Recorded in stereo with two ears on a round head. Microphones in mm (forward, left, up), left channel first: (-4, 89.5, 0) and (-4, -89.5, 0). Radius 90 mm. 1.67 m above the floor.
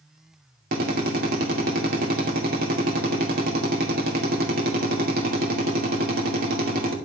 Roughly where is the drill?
Right.